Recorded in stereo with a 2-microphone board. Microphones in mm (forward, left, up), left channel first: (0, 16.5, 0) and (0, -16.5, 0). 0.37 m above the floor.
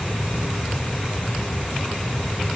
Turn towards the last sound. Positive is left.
No sound to turn to.